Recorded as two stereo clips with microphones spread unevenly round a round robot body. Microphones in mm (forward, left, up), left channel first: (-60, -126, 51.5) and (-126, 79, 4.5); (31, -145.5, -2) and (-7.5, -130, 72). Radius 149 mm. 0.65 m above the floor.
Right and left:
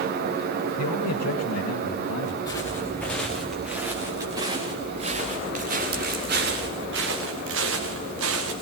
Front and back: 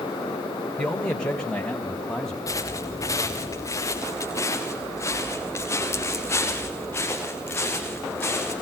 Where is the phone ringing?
No phone ringing in this recording.